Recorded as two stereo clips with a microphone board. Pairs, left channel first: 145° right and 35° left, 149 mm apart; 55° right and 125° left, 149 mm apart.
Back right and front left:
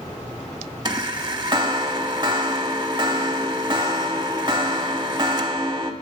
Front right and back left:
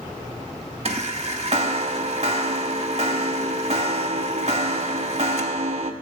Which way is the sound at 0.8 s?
90° left.